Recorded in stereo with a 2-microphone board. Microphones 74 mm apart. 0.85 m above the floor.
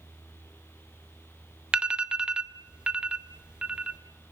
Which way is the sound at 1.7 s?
15° right (ahead or behind).